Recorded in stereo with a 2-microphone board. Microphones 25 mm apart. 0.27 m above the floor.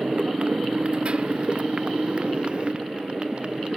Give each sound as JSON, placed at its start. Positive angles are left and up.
{"t": 0.0, "sound": "a motorcycle", "side_deg": -40}